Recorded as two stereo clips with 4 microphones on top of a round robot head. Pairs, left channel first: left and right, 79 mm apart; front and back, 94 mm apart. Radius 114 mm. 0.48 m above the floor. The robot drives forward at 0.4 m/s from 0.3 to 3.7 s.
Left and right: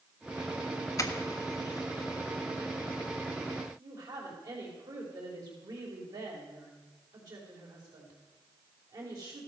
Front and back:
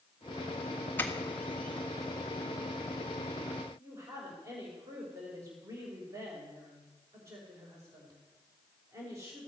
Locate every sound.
1.0 s a doorbell: 65° left, 1.8 m; by 2.2 s 85° left, 1.7 m
3.8 s a woman speaking: 120° right, 3.5 m